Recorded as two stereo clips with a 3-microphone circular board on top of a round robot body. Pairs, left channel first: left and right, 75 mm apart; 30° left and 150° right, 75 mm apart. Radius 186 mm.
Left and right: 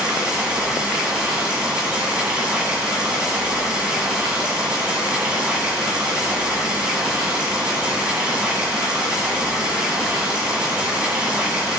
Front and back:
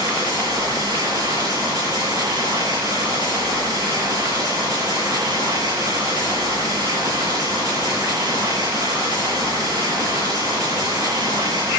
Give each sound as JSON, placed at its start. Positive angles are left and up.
{"t": 0.0, "sound": "running water", "azimuth_deg": -165, "distance_m": 7.5}